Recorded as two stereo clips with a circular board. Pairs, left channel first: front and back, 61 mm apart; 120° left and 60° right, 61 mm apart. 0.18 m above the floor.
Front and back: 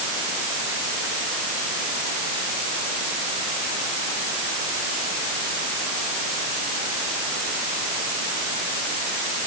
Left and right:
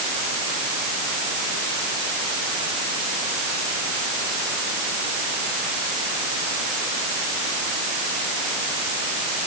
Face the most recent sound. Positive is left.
No sound to turn to.